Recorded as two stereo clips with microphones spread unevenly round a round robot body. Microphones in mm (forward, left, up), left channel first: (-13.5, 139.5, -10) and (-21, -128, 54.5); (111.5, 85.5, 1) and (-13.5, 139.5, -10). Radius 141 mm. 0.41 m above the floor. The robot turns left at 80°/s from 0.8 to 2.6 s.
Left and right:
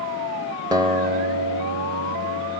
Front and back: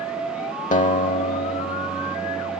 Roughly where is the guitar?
Ahead.